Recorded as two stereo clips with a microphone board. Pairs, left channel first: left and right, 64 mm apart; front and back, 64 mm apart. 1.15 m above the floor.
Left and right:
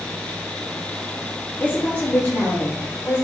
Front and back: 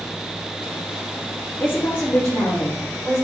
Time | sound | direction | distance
1.6 | a woman speaking | 45° left | 0.7 m